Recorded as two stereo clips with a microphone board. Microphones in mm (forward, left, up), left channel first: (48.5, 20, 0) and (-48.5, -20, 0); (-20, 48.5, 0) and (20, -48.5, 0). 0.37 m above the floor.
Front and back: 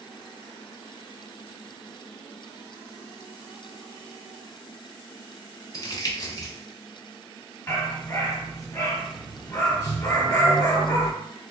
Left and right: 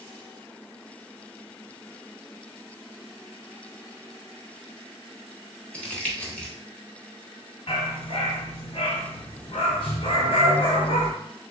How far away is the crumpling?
About 1.0 m.